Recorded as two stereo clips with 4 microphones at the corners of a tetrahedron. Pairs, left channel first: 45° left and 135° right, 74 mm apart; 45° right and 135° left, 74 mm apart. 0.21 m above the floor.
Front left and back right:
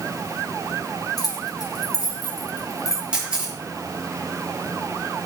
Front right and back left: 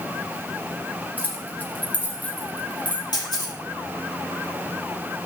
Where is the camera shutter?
55° right, 5.5 m.